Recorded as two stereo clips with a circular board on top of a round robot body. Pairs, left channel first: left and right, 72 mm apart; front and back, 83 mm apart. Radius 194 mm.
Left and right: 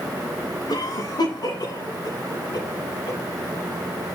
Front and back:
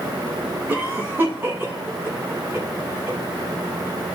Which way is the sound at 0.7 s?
115° left.